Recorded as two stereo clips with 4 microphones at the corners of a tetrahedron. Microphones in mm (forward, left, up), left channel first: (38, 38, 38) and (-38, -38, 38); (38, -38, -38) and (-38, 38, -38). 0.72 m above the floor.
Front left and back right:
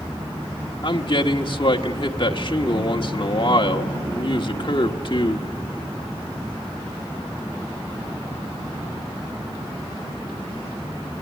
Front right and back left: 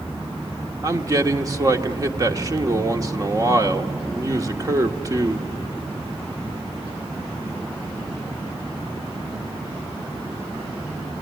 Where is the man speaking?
80° left, 1.4 m.